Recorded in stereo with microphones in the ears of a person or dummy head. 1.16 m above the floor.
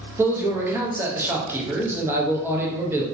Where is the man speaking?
15° right (ahead or behind), 0.7 m.